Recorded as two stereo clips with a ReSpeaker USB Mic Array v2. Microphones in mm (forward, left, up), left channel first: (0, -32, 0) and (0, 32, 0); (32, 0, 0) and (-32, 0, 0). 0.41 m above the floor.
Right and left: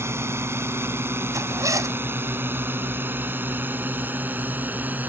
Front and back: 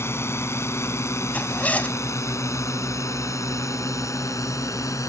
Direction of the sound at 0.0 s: 45° left.